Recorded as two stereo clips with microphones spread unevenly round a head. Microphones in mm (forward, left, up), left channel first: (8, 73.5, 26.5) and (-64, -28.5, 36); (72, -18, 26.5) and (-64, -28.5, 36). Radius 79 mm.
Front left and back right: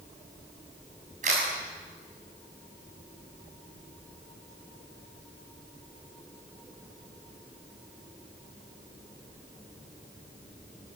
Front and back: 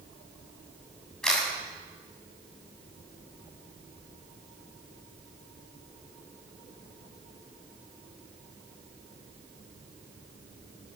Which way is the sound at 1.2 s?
80° right.